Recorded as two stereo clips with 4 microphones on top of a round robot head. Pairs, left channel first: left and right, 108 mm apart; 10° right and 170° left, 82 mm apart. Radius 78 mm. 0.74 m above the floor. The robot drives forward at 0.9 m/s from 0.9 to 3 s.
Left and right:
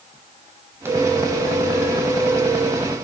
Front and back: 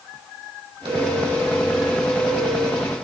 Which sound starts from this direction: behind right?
A phone ringing, at 0.8 s.